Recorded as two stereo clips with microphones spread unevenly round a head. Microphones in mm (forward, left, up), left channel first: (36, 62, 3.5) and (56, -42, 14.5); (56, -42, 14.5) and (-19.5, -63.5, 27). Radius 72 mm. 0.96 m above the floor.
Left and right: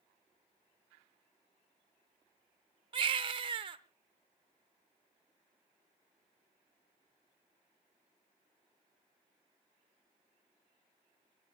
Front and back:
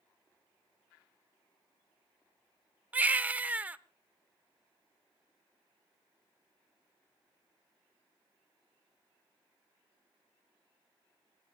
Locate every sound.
2.9 s a baby crying: 105° right, 0.8 m